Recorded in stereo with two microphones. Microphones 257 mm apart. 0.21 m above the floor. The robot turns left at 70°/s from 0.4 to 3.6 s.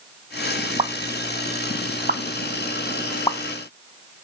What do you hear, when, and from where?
0.8 s a pop: 25° right (ahead or behind), 0.6 m; by 3.4 s 25° left (ahead or behind), 0.6 m